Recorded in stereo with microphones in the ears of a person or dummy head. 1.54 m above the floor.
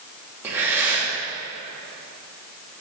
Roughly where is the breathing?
Centre.